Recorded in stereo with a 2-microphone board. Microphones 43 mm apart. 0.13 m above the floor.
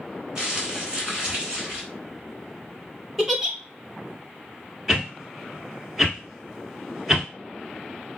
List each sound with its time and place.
0.3 s crumpling: 20° right (ahead or behind), 1.2 m
3.2 s a giggle: 10° right (ahead or behind), 0.6 m
4.9 s a whoosh: 10° right (ahead or behind), 1.0 m